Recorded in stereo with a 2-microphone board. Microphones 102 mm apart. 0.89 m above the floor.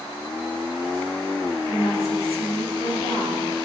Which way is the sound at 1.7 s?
70° left (ahead or behind).